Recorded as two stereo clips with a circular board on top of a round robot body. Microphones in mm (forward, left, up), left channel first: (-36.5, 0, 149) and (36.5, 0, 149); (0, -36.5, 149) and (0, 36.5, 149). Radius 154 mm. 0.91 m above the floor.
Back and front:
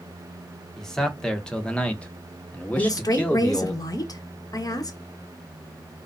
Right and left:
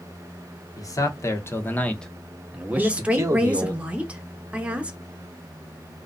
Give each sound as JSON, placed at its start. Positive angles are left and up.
{"t": 0.8, "sound": "a man speaking", "azimuth_deg": -100, "distance_m": 1.1}
{"t": 2.7, "sound": "a woman speaking", "azimuth_deg": 160, "distance_m": 0.9}